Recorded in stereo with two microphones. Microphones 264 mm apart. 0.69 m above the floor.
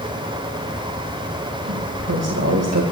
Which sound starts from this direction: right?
A woman speaking, at 1.7 s.